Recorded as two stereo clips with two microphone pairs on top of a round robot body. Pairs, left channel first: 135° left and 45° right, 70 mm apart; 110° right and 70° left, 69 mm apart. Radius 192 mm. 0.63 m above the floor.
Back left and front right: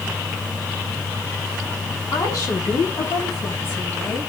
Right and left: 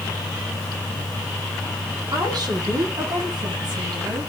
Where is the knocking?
No knocking in this recording.